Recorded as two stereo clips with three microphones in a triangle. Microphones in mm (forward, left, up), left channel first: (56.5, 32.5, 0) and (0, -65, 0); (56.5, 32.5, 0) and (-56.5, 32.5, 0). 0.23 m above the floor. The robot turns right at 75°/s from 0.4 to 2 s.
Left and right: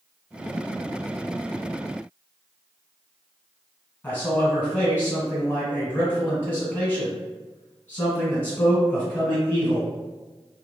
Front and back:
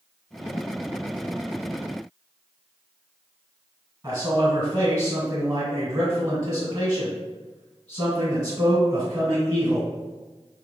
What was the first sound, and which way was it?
A man speaking, 130° left.